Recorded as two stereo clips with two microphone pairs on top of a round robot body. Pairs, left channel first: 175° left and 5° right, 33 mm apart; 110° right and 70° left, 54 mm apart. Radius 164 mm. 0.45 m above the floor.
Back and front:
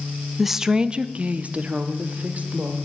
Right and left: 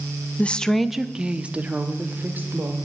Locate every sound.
0.4 s a woman speaking: 70° right, 0.7 m; by 2.8 s 25° left, 1.8 m